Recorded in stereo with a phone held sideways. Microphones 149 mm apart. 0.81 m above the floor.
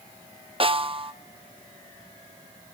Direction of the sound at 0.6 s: 35° right (ahead or behind).